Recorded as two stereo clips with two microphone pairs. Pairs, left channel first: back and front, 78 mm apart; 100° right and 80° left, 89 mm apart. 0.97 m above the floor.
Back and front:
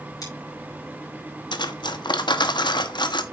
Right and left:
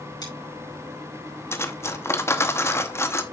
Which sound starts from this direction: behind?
Cutlery clinking, at 1.5 s.